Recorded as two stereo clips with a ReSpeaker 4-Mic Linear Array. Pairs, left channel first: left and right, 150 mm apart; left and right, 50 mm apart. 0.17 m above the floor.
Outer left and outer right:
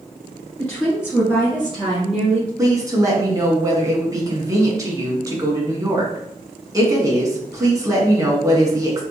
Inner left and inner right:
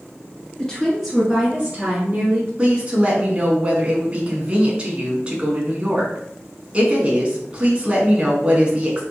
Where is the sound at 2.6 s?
25° right (ahead or behind), 1.5 m.